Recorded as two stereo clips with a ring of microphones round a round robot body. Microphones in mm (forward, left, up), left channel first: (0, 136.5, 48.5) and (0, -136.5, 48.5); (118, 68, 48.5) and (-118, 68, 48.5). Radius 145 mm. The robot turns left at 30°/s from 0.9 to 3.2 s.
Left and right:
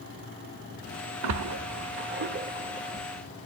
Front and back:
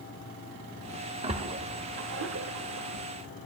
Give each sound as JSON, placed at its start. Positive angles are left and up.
{"t": 1.2, "sound": "a splash", "azimuth_deg": -110, "distance_m": 1.2}